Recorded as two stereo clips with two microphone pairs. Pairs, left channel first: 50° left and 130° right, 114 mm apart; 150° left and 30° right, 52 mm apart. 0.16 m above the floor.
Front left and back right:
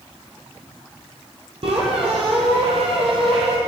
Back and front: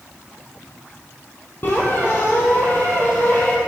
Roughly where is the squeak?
Behind.